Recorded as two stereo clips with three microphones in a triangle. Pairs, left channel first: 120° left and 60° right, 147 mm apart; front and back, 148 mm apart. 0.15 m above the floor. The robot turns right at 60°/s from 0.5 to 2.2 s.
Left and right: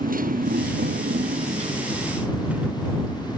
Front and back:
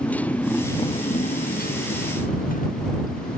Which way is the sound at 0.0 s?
80° right.